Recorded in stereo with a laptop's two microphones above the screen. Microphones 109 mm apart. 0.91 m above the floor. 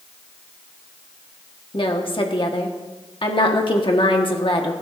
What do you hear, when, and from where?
1.7 s a woman speaking: 50° left (ahead or behind), 1.5 m